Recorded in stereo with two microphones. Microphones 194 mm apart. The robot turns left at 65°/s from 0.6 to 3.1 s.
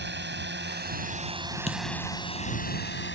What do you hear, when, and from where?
0.0 s a drone: 65° right (ahead or behind); by 3.1 s 70° left (ahead or behind)
1.7 s a dropped coin: 35° left (ahead or behind)